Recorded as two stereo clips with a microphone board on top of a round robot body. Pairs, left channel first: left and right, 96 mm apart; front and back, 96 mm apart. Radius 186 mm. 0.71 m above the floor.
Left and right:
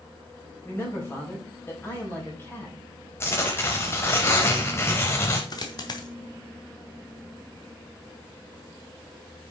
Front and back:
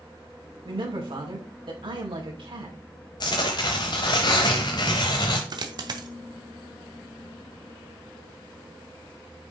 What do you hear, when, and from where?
0.7 s a man speaking: 155° left, 5 m
3.2 s tearing paper: 30° left, 0.6 m
5.5 s a dropped coin: 135° left, 1.2 m